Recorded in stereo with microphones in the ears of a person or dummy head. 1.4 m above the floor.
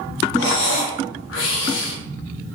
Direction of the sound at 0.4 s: 70° left (ahead or behind).